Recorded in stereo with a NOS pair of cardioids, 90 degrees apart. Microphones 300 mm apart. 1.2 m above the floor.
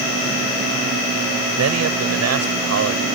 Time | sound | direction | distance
1.6 | a man speaking | 55° right | ?